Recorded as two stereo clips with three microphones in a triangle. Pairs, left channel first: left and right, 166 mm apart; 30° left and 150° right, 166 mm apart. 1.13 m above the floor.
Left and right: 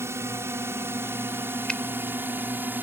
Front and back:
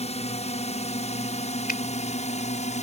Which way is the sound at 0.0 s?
15° right.